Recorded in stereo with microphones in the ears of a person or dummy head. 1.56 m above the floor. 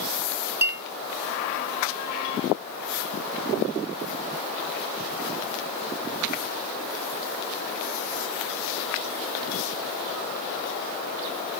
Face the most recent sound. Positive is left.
turn(degrees=-15)  # may be behind; listen again after turning